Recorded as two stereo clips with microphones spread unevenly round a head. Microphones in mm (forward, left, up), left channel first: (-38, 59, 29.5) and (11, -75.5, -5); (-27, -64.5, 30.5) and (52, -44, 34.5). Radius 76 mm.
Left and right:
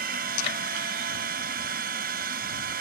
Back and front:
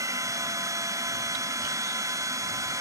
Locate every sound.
0.0 s a machine running: 30° right